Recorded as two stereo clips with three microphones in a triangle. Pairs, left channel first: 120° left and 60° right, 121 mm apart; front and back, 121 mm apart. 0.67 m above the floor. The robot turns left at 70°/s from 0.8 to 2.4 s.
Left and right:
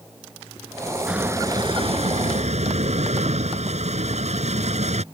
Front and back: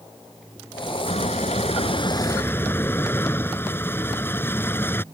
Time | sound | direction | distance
1.1 | a squeak | 25° left | ?